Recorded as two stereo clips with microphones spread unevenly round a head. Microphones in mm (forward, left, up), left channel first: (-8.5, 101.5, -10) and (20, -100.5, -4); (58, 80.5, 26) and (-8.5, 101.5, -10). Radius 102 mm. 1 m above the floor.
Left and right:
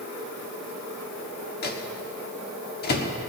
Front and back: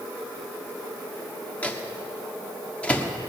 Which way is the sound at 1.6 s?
50° left.